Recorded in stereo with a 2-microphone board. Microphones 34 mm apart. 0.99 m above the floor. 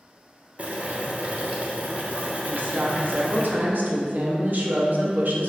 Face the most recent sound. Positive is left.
turn(degrees=-60)  # may be behind; listen again after turning